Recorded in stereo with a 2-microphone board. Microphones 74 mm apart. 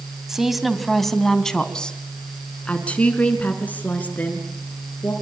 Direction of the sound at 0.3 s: 5° right (ahead or behind).